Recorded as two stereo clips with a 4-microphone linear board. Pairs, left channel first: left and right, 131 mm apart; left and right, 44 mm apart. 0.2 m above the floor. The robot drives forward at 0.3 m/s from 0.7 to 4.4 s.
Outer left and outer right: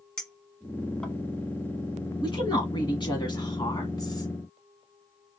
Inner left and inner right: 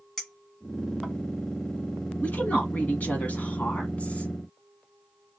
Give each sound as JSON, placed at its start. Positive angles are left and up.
{"t": 0.2, "sound": "a clink", "side_deg": 5, "distance_m": 1.2}
{"t": 2.2, "sound": "a woman speaking", "side_deg": 40, "distance_m": 1.5}